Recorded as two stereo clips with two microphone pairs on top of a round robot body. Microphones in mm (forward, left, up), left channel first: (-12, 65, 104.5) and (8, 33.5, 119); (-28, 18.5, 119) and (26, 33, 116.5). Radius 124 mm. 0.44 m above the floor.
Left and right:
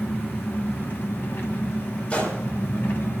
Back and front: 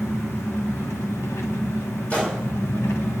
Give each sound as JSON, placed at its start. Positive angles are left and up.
{"t": 0.0, "sound": "an engine running", "azimuth_deg": 150, "distance_m": 1.1}
{"t": 2.1, "sound": "a gunshot", "azimuth_deg": 130, "distance_m": 2.5}